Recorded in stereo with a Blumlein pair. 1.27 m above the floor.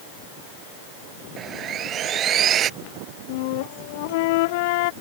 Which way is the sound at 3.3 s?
50° left.